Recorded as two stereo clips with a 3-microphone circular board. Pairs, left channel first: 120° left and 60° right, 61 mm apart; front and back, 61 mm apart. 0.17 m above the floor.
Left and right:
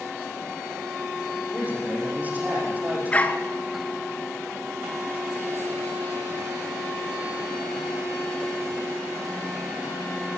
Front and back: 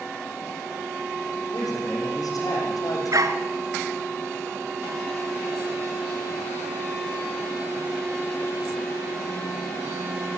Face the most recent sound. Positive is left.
turn(degrees=-175)